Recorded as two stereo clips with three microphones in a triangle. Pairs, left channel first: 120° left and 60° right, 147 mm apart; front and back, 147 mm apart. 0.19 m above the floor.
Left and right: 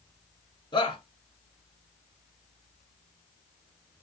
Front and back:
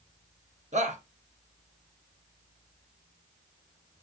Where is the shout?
175° left, 2 m.